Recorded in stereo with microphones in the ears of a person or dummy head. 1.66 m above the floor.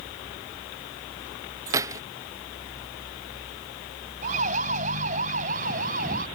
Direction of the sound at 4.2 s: 40° right (ahead or behind).